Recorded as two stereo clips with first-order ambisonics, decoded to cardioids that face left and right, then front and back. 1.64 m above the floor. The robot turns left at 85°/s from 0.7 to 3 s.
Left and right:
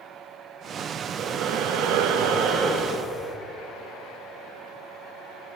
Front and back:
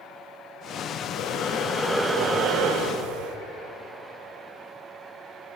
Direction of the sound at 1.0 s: 5° right.